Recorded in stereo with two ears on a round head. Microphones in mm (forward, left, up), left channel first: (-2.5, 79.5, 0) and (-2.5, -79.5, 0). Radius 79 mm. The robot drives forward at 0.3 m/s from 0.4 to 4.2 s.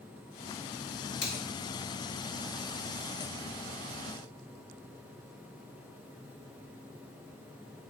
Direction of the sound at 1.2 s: 80° left.